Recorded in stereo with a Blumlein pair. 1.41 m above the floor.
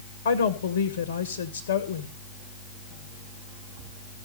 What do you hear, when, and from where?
0.2 s a woman speaking: 60° left, 1.7 m